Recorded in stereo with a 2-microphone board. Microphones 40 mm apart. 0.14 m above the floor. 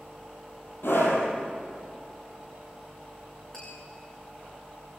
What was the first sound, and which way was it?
A scream, 65° left (ahead or behind).